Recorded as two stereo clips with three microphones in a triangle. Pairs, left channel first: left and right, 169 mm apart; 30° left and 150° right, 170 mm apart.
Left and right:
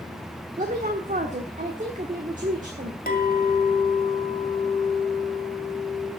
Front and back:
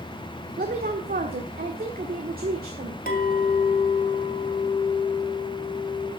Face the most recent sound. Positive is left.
turn(degrees=55)